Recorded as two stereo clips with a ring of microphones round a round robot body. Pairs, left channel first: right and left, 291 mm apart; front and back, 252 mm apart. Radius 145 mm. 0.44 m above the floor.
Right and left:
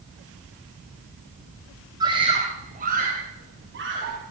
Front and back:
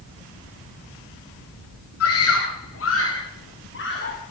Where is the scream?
15° left, 3.5 m; by 4.2 s 45° left, 4.5 m.